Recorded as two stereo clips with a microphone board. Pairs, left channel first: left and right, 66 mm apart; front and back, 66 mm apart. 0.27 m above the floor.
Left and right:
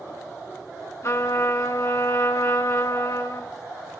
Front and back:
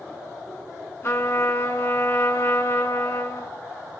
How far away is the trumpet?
About 1.6 m.